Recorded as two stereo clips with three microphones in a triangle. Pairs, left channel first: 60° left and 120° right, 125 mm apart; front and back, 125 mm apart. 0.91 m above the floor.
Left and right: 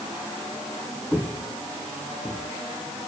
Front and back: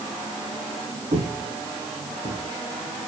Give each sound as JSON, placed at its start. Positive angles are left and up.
{"t": 1.1, "sound": "footsteps", "azimuth_deg": 160, "distance_m": 3.0}